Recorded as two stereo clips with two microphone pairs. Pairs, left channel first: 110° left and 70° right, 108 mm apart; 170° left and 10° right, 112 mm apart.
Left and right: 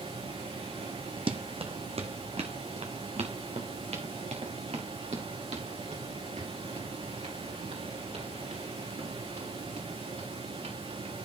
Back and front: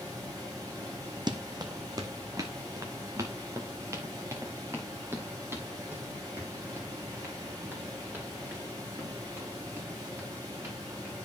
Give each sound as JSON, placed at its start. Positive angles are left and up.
{"t": 0.0, "sound": "running water", "azimuth_deg": -65, "distance_m": 8.5}
{"t": 1.3, "sound": "running footsteps", "azimuth_deg": -50, "distance_m": 1.1}